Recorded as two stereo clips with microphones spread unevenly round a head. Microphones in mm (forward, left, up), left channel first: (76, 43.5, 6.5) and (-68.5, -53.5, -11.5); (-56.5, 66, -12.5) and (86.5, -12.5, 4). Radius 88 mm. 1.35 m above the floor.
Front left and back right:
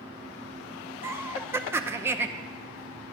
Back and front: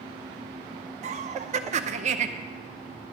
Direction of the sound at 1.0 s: 75° right.